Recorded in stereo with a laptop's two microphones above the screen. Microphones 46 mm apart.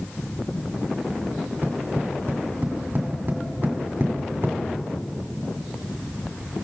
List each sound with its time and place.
1.3 s tapping: 50° right (ahead or behind), 2 m